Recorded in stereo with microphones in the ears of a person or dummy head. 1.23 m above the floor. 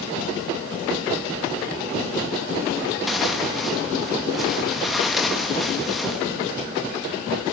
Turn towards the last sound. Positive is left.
turn(degrees=0)  # may be behind; listen again after turning